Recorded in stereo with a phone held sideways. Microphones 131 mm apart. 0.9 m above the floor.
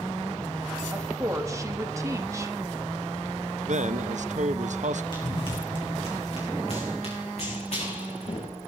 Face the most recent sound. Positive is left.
turn(degrees=55)  # may be behind; listen again after turning